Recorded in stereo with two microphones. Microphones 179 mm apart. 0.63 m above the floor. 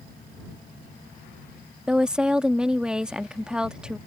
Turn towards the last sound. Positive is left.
turn(degrees=-5)  # may be behind; listen again after turning